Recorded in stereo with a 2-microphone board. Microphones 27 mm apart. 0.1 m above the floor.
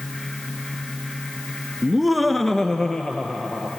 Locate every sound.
1.8 s laughter: 15° right (ahead or behind), 1.1 m; by 3.7 s 30° left (ahead or behind), 2.5 m